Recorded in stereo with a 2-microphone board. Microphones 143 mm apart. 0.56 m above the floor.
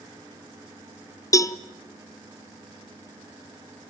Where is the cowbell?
20° left (ahead or behind), 0.6 m.